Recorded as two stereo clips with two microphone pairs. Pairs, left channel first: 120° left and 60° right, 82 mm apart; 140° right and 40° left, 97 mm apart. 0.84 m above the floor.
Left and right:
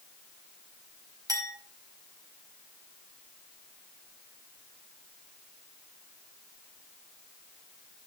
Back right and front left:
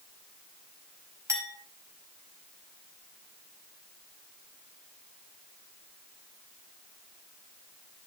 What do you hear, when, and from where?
1.3 s a clink: 20° right, 4 m